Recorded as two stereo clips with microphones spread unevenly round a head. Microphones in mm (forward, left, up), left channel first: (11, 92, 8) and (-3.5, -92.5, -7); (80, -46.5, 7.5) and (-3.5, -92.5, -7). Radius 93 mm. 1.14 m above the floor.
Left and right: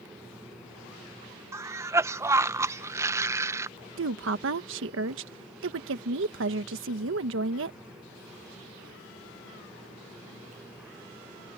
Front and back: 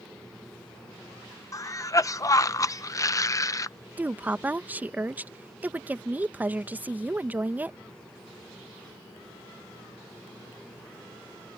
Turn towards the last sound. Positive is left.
turn(degrees=-80)